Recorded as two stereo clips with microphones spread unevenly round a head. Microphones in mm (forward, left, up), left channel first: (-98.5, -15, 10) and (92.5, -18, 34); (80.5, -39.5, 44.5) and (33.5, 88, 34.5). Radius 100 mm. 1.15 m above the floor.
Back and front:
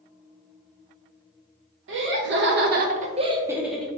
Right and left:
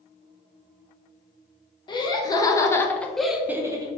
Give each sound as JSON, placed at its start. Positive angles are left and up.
{"t": 1.9, "sound": "laughter", "azimuth_deg": -15, "distance_m": 1.1}